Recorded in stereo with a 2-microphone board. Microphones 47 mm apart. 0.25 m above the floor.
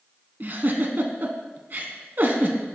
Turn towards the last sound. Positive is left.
turn(degrees=-45)  # may be behind; listen again after turning